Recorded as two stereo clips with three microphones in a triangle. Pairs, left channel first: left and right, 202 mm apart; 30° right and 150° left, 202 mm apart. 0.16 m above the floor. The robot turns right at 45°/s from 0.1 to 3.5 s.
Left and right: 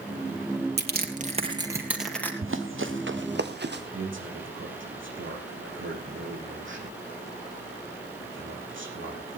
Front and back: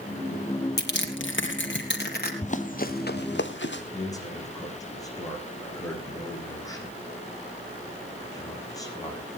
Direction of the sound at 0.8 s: 60° right.